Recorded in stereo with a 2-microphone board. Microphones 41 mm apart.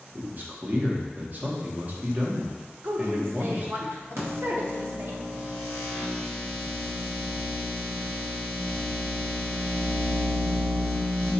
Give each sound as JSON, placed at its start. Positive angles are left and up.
{"t": 0.1, "sound": "a man speaking", "side_deg": -40, "distance_m": 0.8}
{"t": 2.8, "sound": "a woman speaking", "side_deg": -55, "distance_m": 0.7}
{"t": 4.2, "sound": "a microwave", "side_deg": -80, "distance_m": 1.3}